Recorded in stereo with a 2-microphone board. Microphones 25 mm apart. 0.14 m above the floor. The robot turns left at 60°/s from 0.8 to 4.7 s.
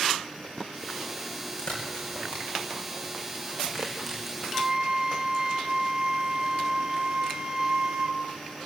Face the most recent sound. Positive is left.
turn(degrees=-25)  # may be behind; listen again after turning